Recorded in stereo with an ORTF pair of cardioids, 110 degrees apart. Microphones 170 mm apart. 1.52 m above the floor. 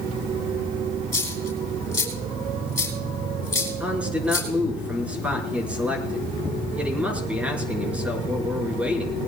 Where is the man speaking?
10° right, 5.5 m.